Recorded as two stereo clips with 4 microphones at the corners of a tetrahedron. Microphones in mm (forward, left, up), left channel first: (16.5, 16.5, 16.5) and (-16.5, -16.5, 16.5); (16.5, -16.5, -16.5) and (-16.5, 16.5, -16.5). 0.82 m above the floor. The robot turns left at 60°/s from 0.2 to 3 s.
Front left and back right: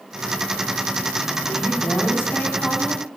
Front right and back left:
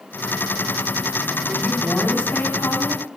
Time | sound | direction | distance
1.5 | a woman speaking | 55° left | 5.5 m